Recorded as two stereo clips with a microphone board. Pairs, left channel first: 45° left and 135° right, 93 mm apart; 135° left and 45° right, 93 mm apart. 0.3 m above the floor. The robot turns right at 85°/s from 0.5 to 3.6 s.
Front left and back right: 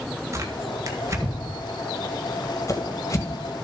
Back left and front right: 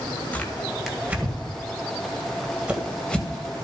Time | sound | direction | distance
0.3 | tearing paper | 160° right | 1.8 m